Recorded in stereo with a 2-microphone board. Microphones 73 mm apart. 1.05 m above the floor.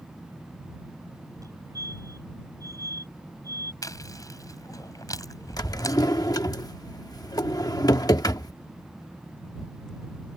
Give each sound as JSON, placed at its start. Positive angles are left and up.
{"t": 1.4, "sound": "a fire alarm", "side_deg": -50}
{"t": 3.8, "sound": "chewing", "side_deg": 50}
{"t": 5.6, "sound": "a drawer", "side_deg": 55}